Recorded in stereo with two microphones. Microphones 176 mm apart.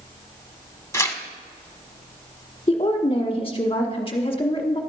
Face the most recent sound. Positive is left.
turn(degrees=30)  # may be behind; listen again after turning